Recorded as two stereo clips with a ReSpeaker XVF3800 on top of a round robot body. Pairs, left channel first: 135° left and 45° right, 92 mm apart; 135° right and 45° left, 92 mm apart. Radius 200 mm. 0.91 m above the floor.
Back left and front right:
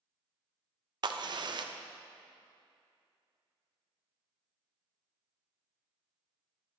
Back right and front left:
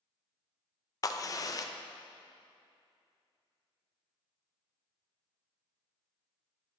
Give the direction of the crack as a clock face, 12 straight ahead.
3 o'clock.